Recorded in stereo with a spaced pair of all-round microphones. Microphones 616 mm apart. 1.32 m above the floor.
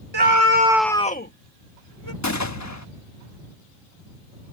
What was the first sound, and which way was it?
A scream, 45° right (ahead or behind).